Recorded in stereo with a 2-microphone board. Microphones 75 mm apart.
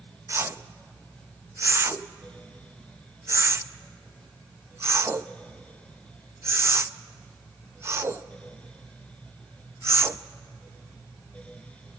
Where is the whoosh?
35° right (ahead or behind), 0.6 m.